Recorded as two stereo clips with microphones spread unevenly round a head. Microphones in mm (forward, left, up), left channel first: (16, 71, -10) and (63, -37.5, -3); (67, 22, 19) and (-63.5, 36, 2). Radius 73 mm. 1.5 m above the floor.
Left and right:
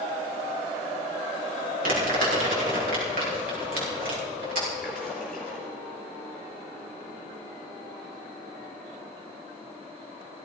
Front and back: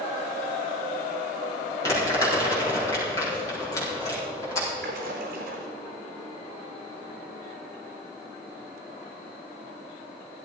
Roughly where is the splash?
Behind.